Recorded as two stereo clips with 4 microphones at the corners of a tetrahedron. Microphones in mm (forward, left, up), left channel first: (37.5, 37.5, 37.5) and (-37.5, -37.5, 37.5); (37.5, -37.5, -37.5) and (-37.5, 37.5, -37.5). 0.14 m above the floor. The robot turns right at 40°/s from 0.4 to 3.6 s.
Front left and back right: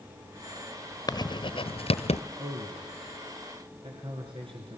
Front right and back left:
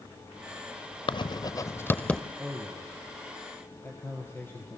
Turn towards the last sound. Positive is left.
turn(degrees=-110)